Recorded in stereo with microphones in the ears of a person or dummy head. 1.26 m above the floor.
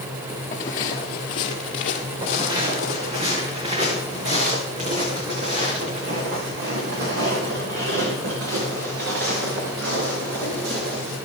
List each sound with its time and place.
0.5 s footsteps: 15° left (ahead or behind), 1.3 m; by 3.2 s 45° left (ahead or behind), 2.5 m
2.2 s footsteps: 25° right (ahead or behind), 6 m; by 11.2 s 80° right, 8.5 m